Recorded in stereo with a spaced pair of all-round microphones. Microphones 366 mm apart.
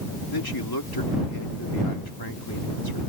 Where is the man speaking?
80° left.